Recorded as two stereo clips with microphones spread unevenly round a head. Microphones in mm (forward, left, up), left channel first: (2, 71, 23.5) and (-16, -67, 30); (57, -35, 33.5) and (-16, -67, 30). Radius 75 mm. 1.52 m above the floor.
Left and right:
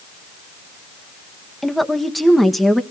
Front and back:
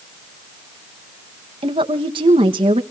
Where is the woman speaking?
170° left, 1.5 m.